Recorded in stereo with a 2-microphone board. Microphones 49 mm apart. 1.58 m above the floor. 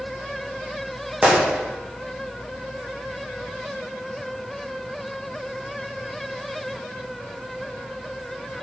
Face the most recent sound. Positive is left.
turn(degrees=-15)  # may be behind; listen again after turning